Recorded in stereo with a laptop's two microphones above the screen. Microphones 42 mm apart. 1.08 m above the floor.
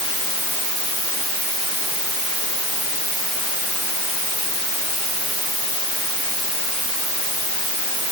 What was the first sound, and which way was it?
Only background noise.